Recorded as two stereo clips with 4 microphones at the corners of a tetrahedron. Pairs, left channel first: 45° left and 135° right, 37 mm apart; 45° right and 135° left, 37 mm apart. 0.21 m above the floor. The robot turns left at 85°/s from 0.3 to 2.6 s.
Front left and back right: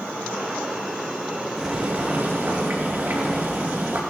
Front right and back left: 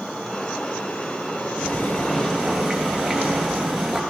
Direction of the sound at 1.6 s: 50° right.